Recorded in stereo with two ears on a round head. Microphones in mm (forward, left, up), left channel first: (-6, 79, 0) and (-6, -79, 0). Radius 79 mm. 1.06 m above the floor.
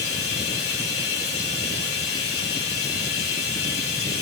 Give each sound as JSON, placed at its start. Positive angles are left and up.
{"t": 0.0, "sound": "running water", "side_deg": 60, "distance_m": 2.5}